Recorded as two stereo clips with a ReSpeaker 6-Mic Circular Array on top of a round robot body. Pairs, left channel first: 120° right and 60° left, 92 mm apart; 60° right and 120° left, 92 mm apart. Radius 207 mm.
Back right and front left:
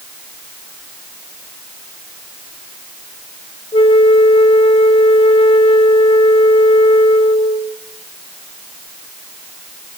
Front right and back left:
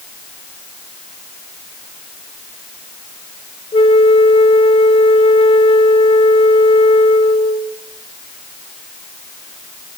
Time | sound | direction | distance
3.7 | a flute | 90° right | 0.9 m